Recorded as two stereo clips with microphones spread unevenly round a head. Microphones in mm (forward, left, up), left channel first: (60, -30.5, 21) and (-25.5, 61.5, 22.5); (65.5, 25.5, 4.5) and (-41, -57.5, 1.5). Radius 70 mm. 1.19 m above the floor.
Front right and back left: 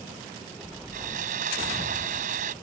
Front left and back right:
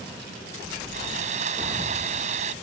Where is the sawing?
170° left.